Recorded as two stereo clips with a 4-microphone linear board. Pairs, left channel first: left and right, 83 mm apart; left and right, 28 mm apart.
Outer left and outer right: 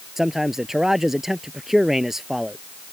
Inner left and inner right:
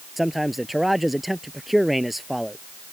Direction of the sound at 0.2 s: 5° right (ahead or behind).